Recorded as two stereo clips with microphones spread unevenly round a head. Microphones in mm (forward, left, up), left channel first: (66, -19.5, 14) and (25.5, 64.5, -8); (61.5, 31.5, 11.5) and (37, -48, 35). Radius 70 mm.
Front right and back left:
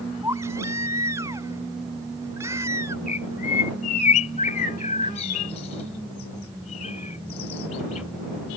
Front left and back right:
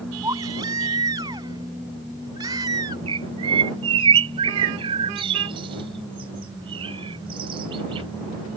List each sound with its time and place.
0.2 s a baby crying: 170° right
3.1 s a bird: 95° right